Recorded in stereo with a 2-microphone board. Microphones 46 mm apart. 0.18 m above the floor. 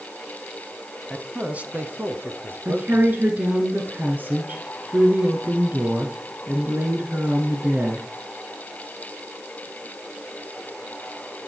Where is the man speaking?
5° right (ahead or behind), 1.0 m; by 3.2 s 60° right (ahead or behind), 3 m.